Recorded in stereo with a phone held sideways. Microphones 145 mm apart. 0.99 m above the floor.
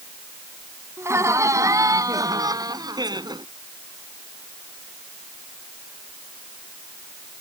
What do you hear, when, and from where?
1.0 s laughter: 20° right (ahead or behind); by 3.5 s 30° right (ahead or behind)